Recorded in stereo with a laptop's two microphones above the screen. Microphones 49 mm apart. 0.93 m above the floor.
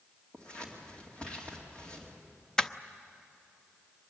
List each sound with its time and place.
0.3 s scissors: 20° left (ahead or behind), 2.5 m
2.6 s crushing: 15° left (ahead or behind), 0.6 m